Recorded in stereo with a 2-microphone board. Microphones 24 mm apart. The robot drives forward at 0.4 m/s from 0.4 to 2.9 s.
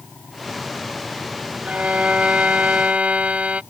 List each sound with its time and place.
1.6 s a violin: 85° right